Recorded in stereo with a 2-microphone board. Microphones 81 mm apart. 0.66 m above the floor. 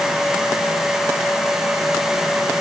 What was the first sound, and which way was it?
Only background noise.